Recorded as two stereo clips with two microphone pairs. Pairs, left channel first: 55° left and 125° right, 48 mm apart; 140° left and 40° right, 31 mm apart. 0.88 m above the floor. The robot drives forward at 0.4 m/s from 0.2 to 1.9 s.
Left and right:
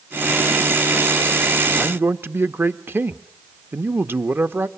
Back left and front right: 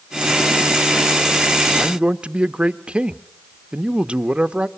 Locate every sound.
1.8 s a man speaking: 90° right, 0.9 m; by 4.7 s 95° right, 0.9 m